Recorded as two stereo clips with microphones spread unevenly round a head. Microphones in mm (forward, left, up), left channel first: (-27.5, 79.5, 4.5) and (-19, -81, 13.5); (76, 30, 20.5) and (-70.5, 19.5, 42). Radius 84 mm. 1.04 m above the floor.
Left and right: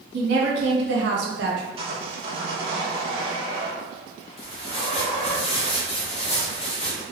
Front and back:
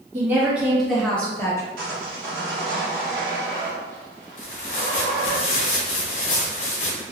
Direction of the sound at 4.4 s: 40° left.